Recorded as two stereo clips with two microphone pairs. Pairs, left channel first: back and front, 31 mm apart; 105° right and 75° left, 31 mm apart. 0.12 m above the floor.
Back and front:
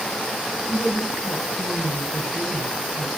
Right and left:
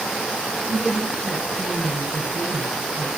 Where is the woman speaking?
165° left, 1.2 m.